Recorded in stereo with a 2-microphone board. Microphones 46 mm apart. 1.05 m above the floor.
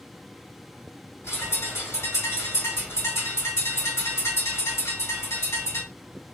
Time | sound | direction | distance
1.2 | a bird | 70° left (ahead or behind) | 1.6 m